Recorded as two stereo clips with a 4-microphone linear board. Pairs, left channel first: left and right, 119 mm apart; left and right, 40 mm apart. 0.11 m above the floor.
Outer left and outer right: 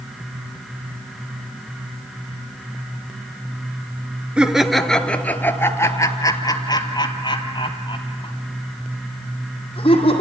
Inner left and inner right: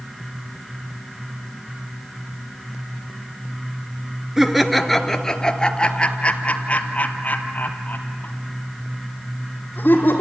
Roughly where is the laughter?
Centre.